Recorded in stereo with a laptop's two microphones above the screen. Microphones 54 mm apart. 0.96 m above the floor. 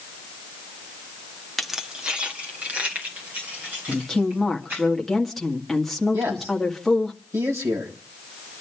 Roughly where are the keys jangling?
Centre.